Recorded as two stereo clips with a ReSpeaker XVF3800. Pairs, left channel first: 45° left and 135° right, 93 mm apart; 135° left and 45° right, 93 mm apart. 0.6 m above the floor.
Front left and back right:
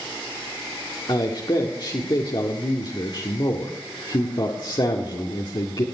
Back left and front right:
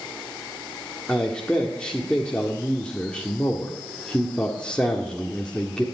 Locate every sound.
1.1 s a man speaking: 60° left, 1.7 m